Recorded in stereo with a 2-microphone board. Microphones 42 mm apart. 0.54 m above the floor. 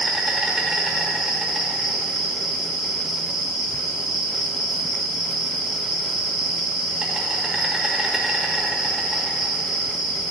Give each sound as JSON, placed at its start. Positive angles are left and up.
{"t": 0.0, "sound": "an insect", "side_deg": -10, "distance_m": 1.4}